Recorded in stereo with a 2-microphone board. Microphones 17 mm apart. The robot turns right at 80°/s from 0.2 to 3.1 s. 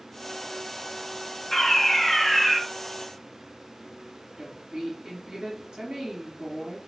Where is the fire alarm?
20° left (ahead or behind), 2 m; by 2.6 s 5° right (ahead or behind), 2 m.